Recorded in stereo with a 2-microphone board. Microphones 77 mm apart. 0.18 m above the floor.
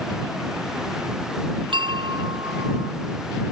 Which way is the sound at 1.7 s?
75° right (ahead or behind).